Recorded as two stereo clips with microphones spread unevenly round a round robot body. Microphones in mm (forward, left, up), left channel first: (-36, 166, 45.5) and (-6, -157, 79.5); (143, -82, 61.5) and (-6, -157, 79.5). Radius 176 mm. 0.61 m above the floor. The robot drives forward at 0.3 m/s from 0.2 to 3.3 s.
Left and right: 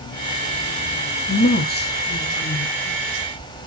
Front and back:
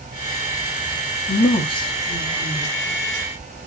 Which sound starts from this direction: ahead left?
A woman speaking, at 1.3 s.